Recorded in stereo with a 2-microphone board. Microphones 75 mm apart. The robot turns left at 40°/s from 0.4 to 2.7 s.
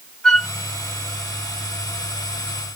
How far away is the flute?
About 1.2 m.